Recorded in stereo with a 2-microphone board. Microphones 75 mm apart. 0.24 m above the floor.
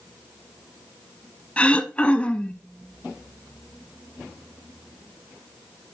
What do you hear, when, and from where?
1.6 s throat clearing: 15° left (ahead or behind), 0.8 m